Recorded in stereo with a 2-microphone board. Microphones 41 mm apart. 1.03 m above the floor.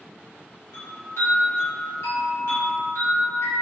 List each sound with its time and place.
0.7 s a chime: 80° left, 1.5 m